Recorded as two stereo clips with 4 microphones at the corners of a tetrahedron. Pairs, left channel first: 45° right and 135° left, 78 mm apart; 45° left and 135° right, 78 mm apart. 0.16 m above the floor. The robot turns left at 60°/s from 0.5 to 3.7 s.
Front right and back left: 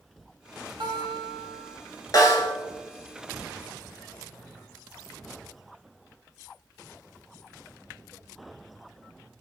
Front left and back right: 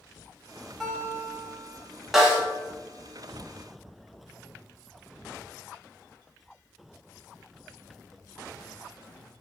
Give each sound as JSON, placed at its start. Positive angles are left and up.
{"t": 0.8, "sound": "a guitar", "azimuth_deg": 130, "distance_m": 0.7}
{"t": 2.1, "sound": "a snare drum", "azimuth_deg": -50, "distance_m": 0.8}